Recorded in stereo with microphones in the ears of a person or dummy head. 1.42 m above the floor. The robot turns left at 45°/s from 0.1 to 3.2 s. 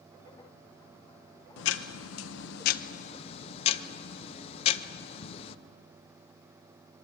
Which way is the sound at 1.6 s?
110° left.